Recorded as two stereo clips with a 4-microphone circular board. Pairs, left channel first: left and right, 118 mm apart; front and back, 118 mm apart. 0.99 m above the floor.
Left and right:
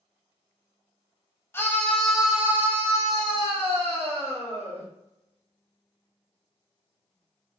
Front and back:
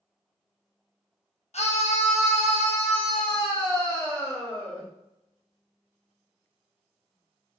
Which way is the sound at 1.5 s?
20° left.